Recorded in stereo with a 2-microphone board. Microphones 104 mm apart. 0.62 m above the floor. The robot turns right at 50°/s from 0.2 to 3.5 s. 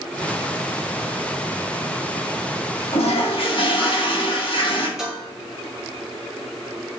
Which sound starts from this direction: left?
A toilet flushing, at 2.9 s.